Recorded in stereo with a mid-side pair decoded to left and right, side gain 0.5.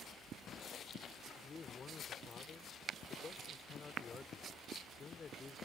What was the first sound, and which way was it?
A man speaking, 35° left.